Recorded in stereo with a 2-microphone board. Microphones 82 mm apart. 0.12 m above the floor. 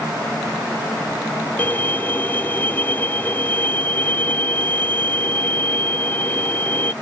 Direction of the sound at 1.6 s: 25° left (ahead or behind).